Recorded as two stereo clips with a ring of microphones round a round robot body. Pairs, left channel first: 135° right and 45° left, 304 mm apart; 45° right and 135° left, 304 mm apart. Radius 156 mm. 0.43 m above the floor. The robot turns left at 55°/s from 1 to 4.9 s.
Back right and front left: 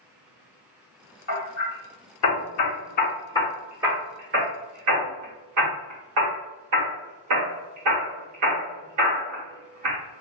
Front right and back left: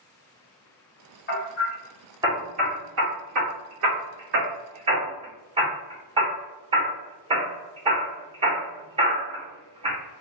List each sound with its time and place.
1.3 s hammering: 95° right, 1.5 m; by 10.0 s 65° left, 1.5 m